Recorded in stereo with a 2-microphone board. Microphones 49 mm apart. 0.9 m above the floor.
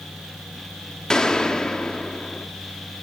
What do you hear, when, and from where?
1.1 s a gunshot: 10° left (ahead or behind), 1.3 m